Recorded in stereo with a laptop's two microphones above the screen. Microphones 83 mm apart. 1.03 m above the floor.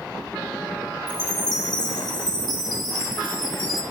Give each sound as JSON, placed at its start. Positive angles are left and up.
{"t": 1.1, "sound": "a chime", "side_deg": 65, "distance_m": 1.9}